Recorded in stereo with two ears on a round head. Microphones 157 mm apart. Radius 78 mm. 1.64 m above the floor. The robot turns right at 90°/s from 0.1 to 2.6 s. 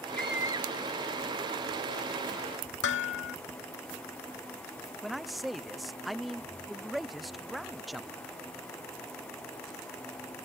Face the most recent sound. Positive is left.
turn(degrees=0)  # may be behind; listen again after turning